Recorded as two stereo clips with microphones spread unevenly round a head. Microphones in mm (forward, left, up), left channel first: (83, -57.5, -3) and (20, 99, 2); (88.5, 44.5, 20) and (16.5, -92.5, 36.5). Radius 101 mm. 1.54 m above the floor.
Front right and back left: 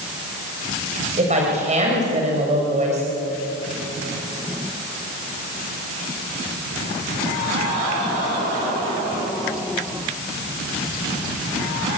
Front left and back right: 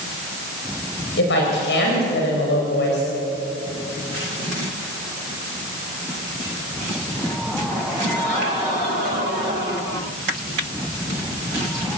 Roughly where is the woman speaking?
Ahead left.